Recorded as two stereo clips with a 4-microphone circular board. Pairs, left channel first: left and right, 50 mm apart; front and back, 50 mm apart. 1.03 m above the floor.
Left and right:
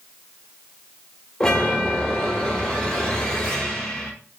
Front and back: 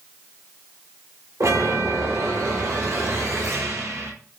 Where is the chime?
165° left, 4.5 m.